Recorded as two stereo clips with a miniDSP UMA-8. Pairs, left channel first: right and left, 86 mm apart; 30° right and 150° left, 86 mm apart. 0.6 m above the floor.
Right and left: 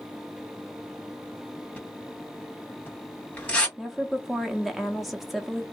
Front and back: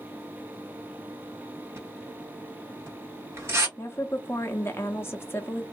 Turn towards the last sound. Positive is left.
turn(degrees=0)